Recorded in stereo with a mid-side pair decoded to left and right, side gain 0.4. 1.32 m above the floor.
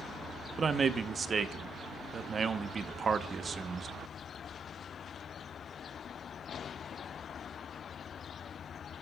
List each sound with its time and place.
0.6 s a man speaking: 45° right, 0.9 m